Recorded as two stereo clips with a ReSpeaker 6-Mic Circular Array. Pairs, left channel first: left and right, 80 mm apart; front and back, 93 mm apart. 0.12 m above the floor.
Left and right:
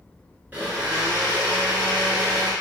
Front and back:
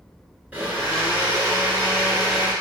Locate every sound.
0.5 s a blender: 125° right, 1.0 m